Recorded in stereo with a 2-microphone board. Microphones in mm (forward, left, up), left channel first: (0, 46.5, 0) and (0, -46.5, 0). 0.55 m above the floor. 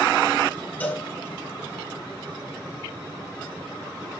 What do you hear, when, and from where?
0.8 s a cowbell: 15° left (ahead or behind), 3.5 m